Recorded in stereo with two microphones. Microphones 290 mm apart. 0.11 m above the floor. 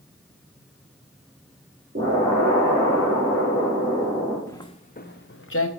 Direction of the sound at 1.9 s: 55° right (ahead or behind).